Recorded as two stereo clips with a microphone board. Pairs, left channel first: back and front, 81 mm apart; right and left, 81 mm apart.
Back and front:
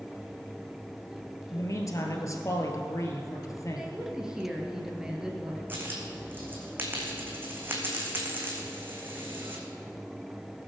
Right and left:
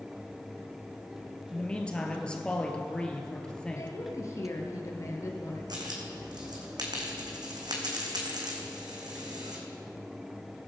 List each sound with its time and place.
1.5 s a man speaking: 160° right, 1.7 m
3.8 s a woman speaking: 75° right, 2 m
5.7 s a dropped coin: 65° left, 2 m